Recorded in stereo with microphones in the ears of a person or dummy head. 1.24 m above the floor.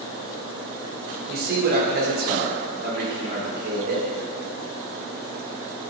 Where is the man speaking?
55° right (ahead or behind), 1.0 m.